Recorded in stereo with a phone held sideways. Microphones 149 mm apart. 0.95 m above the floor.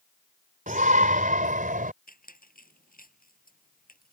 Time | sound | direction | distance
0.7 | a shout | 65° right (ahead or behind) | ?
2.1 | a squeak | 75° left (ahead or behind) | ?